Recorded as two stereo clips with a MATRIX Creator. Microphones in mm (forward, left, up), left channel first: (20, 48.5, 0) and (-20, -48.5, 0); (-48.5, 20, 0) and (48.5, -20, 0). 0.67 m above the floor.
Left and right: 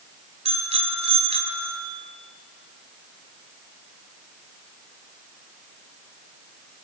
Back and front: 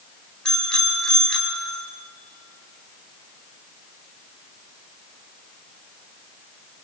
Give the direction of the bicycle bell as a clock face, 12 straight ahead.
4 o'clock.